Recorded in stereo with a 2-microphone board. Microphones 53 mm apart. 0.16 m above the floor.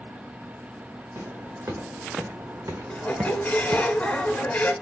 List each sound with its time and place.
1.1 s footsteps: 90° right, 2 m; by 3.8 s centre (ahead or behind), 0.5 m
2.9 s a squeak: 25° left (ahead or behind), 0.8 m